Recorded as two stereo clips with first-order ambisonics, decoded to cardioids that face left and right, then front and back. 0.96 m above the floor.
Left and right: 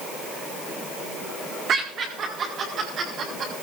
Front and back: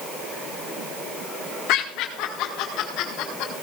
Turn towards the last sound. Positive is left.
turn(degrees=-35)